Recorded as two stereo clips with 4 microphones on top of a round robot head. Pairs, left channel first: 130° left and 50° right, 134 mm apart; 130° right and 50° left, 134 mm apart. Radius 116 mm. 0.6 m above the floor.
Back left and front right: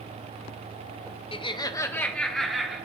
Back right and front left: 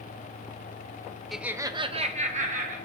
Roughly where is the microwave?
I don't hear a microwave.